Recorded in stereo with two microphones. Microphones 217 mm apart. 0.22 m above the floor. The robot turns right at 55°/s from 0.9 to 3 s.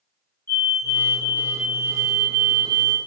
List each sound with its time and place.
0.5 s a fire alarm: 10° left (ahead or behind), 1.9 m; by 3.0 s 25° right (ahead or behind), 1.9 m